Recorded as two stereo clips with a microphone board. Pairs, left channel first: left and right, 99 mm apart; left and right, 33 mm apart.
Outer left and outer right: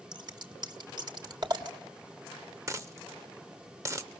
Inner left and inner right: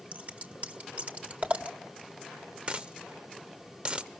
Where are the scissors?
45° right (ahead or behind), 1.3 m.